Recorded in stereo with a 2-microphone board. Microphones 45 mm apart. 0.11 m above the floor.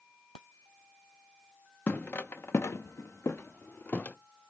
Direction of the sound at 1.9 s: 40° left (ahead or behind).